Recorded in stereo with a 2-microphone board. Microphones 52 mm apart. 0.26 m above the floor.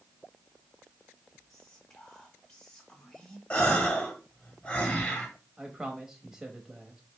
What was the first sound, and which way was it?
Whispering, 10° left (ahead or behind).